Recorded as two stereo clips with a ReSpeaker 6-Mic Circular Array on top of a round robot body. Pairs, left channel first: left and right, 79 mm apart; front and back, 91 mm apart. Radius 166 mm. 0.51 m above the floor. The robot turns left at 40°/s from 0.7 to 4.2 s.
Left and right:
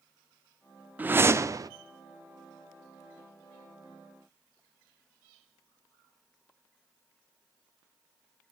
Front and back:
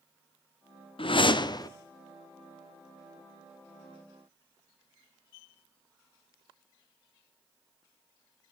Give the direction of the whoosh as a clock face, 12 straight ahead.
1 o'clock.